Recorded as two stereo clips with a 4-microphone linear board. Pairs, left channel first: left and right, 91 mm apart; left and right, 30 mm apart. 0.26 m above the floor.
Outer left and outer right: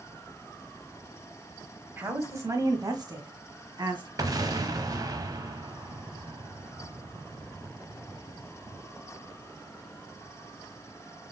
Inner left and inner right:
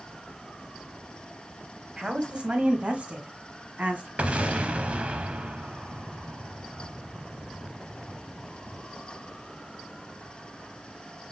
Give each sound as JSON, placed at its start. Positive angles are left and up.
{"t": 2.0, "sound": "a woman speaking", "side_deg": -25, "distance_m": 1.2}
{"t": 4.2, "sound": "an explosion", "side_deg": -45, "distance_m": 0.8}